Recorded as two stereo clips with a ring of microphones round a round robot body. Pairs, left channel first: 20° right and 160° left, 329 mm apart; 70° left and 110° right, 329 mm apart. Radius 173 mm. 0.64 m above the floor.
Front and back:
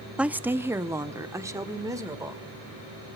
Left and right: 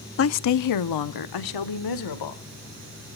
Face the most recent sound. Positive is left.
turn(degrees=75)